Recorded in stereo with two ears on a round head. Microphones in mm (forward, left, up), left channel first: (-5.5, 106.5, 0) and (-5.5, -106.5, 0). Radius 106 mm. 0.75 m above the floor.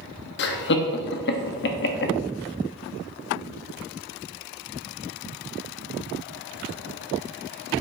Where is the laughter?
50° left (ahead or behind), 1.0 m.